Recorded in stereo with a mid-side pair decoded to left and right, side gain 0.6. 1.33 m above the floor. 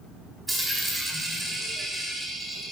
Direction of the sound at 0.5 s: 15° right.